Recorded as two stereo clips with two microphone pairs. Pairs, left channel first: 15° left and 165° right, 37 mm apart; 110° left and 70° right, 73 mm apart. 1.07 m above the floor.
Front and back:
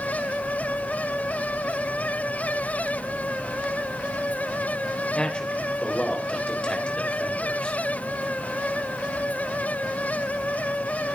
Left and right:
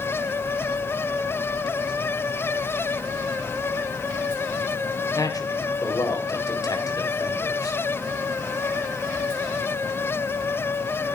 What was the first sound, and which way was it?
A man speaking, 80° left.